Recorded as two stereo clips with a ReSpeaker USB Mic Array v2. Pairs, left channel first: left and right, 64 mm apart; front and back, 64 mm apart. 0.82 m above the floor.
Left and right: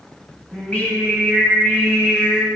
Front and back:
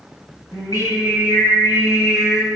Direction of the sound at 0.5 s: 20° left.